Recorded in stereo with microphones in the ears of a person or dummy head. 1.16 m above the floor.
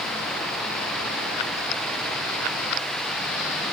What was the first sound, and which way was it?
Only background noise.